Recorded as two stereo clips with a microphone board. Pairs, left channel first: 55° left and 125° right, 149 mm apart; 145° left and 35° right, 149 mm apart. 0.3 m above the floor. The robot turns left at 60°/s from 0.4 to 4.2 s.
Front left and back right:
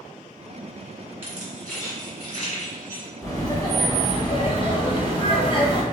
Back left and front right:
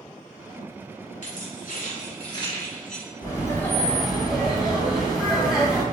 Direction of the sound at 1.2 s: 160° left.